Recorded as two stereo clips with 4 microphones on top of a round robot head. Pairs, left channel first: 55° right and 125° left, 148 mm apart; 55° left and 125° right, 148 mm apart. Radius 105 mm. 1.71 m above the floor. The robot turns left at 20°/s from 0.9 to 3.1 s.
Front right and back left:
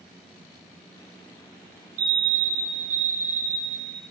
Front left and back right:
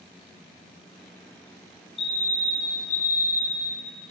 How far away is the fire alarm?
About 4 m.